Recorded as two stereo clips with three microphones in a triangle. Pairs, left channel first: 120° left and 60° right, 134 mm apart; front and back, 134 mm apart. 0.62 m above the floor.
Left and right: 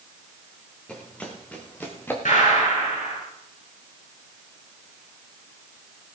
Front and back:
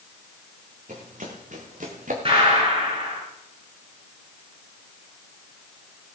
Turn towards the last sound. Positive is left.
turn(degrees=135)